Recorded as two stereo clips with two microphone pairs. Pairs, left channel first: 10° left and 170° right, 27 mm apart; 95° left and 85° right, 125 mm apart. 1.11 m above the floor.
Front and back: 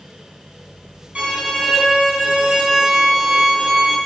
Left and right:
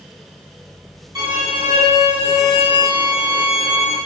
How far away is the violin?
About 2 m.